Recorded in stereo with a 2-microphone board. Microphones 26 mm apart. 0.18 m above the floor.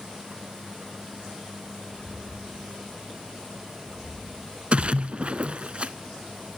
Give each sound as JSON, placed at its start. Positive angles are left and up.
{"t": 1.9, "sound": "footsteps", "side_deg": -80, "distance_m": 1.8}
{"t": 4.7, "sound": "a splash", "side_deg": -55, "distance_m": 0.5}